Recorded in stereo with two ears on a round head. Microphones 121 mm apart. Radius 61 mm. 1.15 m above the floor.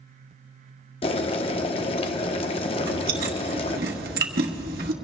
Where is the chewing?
75° right (ahead or behind), 1.3 m.